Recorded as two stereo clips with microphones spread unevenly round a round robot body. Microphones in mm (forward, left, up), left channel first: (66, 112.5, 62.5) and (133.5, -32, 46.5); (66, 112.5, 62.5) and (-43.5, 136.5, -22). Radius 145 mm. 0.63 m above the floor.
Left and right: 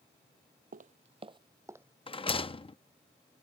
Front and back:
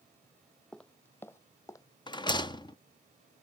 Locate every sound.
0.7 s footsteps: 50° right; by 1.9 s 15° left
2.1 s a rattle: 80° left